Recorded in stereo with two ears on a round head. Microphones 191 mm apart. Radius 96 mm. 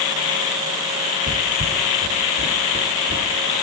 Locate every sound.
1.3 s footsteps: 65° right (ahead or behind), 2 m; by 3.5 s 40° right (ahead or behind), 3.5 m